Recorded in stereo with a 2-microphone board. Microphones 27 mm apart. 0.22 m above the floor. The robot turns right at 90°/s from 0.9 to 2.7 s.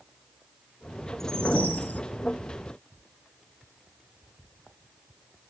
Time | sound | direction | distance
1.2 | a whoosh | 10° left | 0.6 m